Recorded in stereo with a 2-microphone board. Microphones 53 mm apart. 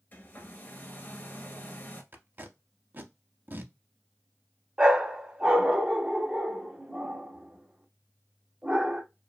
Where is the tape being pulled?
40° right (ahead or behind), 0.5 m.